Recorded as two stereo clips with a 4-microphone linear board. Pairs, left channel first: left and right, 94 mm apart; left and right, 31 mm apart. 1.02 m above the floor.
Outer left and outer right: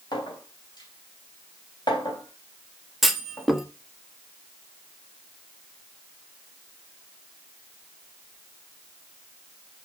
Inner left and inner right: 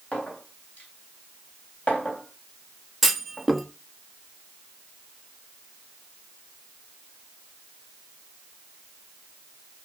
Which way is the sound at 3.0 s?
Centre (ahead or behind).